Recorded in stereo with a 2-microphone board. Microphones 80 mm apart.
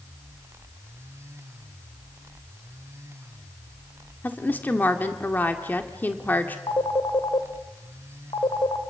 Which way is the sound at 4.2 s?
20° left (ahead or behind).